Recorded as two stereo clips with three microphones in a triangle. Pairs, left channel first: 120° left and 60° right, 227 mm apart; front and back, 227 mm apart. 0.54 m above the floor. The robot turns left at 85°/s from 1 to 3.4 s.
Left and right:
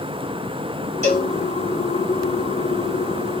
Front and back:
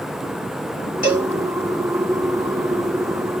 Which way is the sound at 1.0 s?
160° left.